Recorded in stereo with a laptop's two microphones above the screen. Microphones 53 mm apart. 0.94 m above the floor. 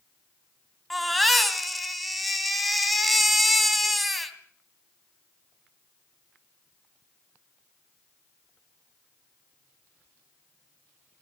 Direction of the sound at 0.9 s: Centre (ahead or behind).